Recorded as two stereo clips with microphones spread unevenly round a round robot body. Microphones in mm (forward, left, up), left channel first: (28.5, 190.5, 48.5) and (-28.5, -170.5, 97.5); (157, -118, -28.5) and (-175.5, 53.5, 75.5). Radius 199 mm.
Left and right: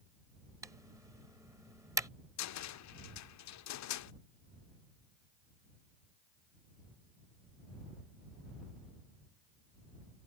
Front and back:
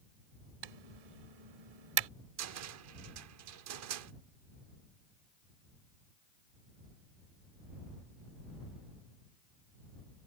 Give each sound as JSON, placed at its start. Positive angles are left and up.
{"t": 0.6, "sound": "typing on a keyboard", "azimuth_deg": 175}
{"t": 2.4, "sound": "a cupboard door", "azimuth_deg": 100}